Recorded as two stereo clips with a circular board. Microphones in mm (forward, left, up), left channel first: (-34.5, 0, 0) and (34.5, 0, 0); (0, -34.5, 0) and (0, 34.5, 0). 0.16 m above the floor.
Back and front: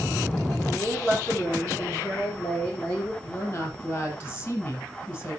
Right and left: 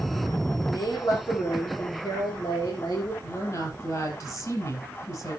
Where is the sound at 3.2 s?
125° right, 5 m.